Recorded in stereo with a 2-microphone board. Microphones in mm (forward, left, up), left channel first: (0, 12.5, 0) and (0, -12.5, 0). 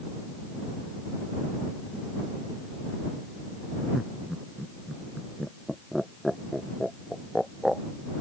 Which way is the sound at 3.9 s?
5° right (ahead or behind).